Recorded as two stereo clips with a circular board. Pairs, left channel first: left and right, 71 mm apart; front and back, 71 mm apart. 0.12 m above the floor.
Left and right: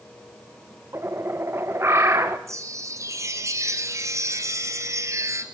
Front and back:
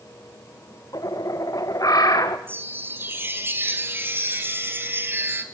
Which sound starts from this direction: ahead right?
A bird, at 0.9 s.